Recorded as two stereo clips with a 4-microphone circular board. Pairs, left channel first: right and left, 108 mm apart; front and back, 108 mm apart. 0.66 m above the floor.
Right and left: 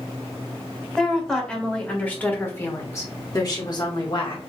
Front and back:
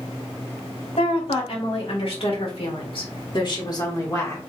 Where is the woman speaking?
5° right, 2.5 m; by 4.4 s 60° right, 1.6 m.